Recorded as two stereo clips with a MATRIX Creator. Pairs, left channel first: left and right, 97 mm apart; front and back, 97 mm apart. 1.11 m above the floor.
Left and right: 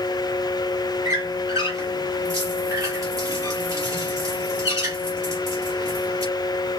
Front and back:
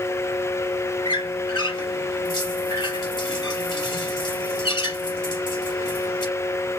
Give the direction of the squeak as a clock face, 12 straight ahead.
1 o'clock.